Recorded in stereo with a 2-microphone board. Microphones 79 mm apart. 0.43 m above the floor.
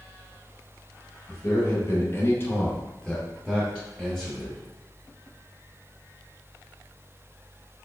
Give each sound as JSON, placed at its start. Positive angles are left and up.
{"t": 1.3, "sound": "a man speaking", "side_deg": 35, "distance_m": 1.6}